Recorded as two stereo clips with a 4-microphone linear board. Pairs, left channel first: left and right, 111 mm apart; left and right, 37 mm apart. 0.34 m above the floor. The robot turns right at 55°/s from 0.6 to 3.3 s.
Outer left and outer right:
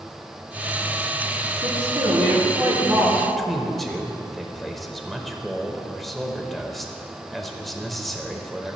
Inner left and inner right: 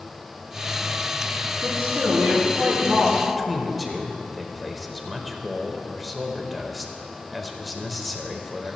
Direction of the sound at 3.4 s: Centre (ahead or behind).